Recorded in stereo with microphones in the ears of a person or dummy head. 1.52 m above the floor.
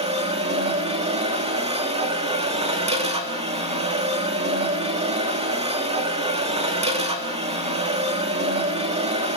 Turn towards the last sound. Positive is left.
turn(degrees=-35)  # may be behind; listen again after turning